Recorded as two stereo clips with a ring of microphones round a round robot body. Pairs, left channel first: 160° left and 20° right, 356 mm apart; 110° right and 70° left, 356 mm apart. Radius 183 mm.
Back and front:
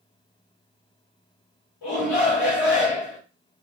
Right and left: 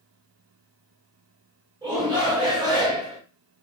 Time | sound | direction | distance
1.8 | a shout | 145° left | 2.0 m